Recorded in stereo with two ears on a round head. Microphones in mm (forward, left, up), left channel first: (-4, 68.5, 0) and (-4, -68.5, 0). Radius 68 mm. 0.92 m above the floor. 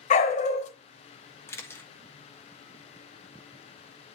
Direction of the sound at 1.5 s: 15° left (ahead or behind).